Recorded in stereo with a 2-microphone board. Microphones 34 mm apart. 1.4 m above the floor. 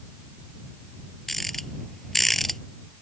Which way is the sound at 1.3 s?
10° left (ahead or behind).